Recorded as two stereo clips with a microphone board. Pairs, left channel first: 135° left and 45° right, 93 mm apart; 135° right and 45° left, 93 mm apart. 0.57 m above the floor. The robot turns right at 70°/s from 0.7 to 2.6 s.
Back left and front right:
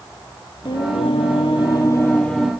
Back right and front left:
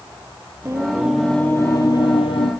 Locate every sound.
0.7 s singing: 100° left, 2.5 m; by 2.5 s 130° right, 2.5 m